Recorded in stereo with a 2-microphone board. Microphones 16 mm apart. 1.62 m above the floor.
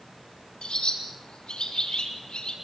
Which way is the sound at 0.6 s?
85° left.